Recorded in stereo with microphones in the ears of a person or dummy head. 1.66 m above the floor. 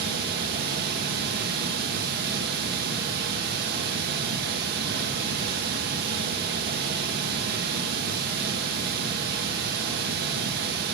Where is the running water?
60° right (ahead or behind), 1.3 m.